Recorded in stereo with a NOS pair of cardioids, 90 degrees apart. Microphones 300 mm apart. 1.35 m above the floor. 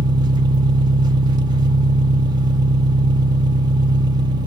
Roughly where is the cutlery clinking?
No cutlery clinking in this recording.